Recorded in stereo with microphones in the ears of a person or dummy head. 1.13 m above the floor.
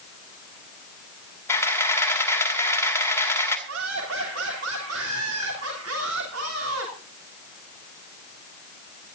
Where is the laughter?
75° right (ahead or behind), 3 m.